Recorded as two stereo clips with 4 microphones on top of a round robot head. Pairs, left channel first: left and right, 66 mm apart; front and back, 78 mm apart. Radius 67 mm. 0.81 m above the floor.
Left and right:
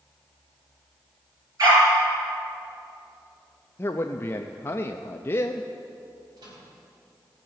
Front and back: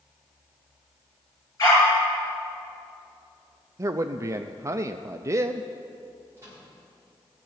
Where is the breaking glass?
I don't hear breaking glass.